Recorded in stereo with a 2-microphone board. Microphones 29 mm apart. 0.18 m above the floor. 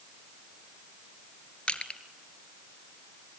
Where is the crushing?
35° left (ahead or behind), 1.8 m.